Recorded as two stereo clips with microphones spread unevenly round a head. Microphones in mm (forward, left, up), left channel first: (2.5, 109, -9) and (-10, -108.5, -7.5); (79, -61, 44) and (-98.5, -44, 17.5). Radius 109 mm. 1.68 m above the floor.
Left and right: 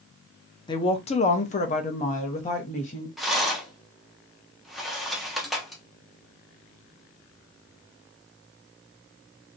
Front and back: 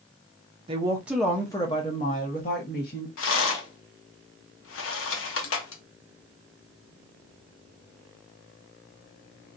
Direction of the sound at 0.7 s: 130° left.